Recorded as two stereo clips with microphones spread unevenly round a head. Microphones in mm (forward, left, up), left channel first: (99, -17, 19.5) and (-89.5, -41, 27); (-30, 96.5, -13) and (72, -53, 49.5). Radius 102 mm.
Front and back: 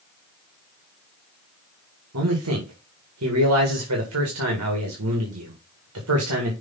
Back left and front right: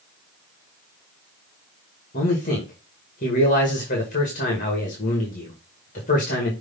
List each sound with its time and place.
2.1 s a man speaking: straight behind, 2 m